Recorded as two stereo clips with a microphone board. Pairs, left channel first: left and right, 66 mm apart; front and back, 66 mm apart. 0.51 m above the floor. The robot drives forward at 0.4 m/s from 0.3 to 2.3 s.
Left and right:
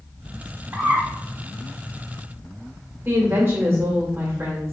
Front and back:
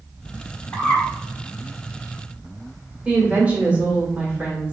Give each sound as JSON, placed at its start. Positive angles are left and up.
{"t": 0.7, "sound": "a bird", "azimuth_deg": -50, "distance_m": 1.4}
{"t": 3.0, "sound": "a woman speaking", "azimuth_deg": -120, "distance_m": 1.4}